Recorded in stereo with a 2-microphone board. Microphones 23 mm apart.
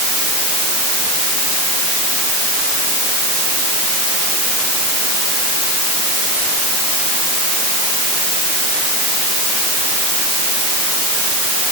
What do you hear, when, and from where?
Only background noise.